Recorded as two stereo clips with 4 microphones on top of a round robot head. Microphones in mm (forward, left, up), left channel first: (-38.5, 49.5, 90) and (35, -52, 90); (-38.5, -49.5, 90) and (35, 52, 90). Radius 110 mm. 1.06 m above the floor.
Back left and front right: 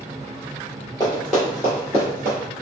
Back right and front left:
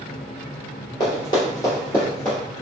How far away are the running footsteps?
About 1.1 m.